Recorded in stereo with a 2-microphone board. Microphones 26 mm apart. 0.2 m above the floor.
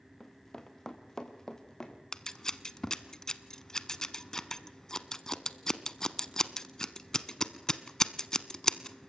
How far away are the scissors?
About 0.9 m.